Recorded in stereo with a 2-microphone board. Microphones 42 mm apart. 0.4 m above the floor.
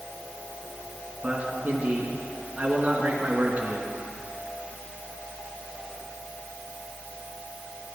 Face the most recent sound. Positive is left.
turn(degrees=-30)  # may be behind; listen again after turning